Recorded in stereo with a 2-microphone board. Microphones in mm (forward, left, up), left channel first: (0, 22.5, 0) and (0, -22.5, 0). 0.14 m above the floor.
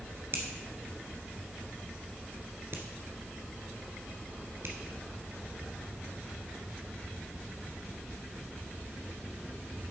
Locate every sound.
0.3 s a finger snap: 55° right (ahead or behind), 1.7 m